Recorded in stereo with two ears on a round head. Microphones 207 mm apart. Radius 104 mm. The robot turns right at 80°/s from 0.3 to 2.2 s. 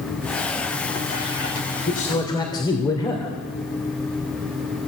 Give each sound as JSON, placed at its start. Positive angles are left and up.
{"t": 1.9, "sound": "a man speaking", "side_deg": 45, "distance_m": 3.0}